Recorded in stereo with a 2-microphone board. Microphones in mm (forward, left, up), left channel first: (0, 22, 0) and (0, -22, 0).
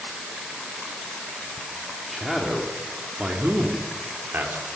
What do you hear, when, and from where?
2.1 s a man speaking: 5° right (ahead or behind), 2.5 m; by 4.6 s 60° right (ahead or behind), 3 m